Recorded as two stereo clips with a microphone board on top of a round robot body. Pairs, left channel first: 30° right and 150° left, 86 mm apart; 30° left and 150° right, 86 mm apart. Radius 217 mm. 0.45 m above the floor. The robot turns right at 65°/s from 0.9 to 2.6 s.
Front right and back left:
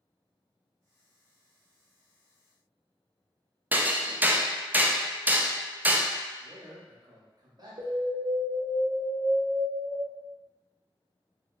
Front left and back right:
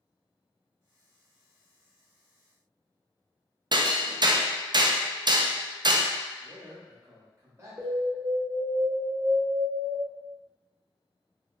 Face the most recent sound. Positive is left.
turn(degrees=160)